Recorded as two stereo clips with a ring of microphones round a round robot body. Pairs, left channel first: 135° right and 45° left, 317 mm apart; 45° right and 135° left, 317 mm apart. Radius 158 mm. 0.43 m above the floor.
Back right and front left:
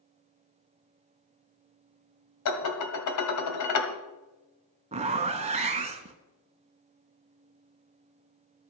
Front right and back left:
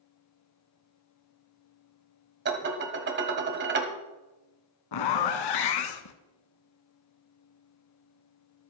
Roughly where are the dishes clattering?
Behind.